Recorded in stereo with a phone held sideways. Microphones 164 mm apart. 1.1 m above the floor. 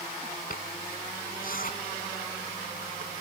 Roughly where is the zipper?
Left.